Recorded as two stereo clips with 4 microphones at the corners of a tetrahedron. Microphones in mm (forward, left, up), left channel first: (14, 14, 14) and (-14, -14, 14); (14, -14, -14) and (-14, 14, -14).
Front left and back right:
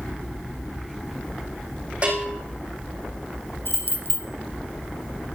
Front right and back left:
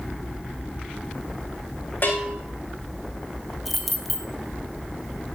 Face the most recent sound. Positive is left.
turn(degrees=45)